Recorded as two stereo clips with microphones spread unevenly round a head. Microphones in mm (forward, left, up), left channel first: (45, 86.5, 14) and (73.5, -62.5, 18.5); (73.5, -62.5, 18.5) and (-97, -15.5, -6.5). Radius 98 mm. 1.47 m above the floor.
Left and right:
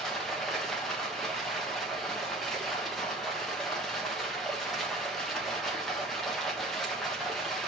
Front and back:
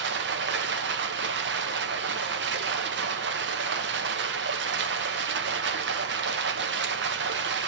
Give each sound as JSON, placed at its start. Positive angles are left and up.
{"t": 0.0, "sound": "running water", "azimuth_deg": -170, "distance_m": 1.1}